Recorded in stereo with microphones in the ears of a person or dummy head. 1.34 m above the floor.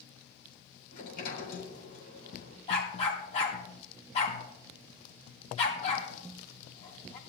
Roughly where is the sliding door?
Left.